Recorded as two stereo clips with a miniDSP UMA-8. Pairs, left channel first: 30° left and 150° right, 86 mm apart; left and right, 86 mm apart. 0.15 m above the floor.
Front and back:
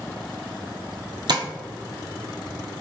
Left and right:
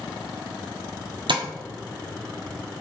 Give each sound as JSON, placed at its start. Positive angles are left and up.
{"t": 1.3, "sound": "tapping", "azimuth_deg": -115, "distance_m": 0.7}